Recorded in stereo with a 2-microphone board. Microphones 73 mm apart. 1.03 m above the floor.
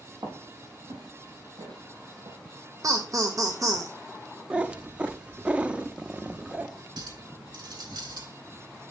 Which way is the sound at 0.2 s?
80° right.